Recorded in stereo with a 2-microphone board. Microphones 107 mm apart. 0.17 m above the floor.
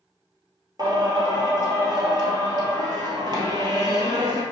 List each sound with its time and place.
0.8 s singing: 40° right (ahead or behind), 1.4 m